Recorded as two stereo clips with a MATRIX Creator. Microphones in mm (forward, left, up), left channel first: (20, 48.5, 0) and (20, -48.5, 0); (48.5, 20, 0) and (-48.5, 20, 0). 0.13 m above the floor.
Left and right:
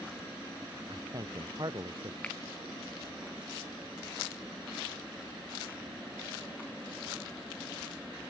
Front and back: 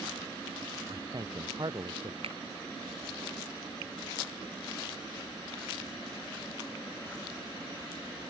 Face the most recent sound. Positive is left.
turn(degrees=165)